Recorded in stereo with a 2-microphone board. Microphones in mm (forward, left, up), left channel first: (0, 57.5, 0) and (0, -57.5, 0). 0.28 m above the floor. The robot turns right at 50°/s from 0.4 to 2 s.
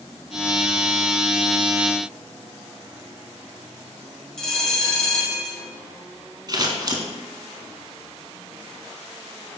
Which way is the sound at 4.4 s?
5° left (ahead or behind).